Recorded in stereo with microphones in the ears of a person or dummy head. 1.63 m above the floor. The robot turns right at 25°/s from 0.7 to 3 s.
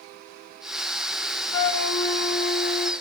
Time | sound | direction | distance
1.5 | a flute | 90° left | 0.5 m